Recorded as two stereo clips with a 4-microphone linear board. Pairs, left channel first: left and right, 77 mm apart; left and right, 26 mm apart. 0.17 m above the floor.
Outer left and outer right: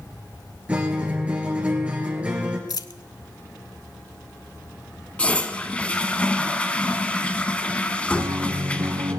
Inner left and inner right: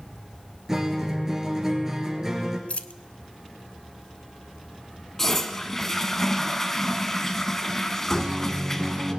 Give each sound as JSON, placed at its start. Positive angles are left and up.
{"t": 0.7, "sound": "a guitar", "side_deg": -15, "distance_m": 2.5}
{"t": 2.7, "sound": "a dropped coin", "side_deg": 55, "distance_m": 0.6}
{"t": 5.2, "sound": "a toilet flushing", "side_deg": 15, "distance_m": 0.9}
{"t": 8.1, "sound": "a guitar", "side_deg": -50, "distance_m": 1.7}